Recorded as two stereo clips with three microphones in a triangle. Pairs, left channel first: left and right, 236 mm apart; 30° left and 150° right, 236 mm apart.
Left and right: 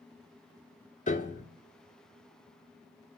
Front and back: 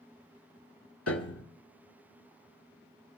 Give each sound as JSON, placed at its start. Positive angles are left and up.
{"t": 1.1, "sound": "a piano", "azimuth_deg": 35, "distance_m": 0.9}